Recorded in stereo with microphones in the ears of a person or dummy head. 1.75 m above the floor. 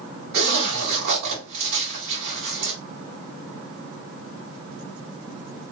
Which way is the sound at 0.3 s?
60° right (ahead or behind).